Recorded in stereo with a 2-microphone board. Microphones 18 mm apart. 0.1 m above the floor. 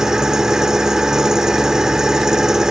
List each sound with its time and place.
0.0 s an engine running: 35° right (ahead or behind), 1.7 m